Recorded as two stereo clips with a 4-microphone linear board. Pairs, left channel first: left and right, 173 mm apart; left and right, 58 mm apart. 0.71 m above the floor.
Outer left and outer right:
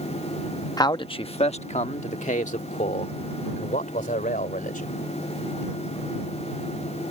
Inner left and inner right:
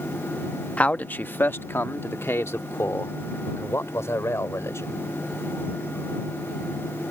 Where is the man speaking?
20° left (ahead or behind); by 5.0 s 50° left (ahead or behind).